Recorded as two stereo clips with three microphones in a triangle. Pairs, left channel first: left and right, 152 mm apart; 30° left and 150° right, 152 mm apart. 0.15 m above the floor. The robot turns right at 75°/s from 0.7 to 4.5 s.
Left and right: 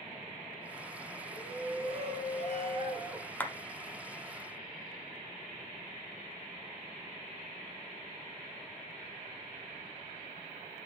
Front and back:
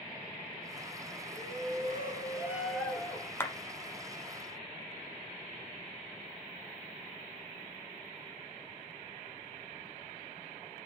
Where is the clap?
45° left, 1.0 m; by 3.5 s 55° left, 1.0 m.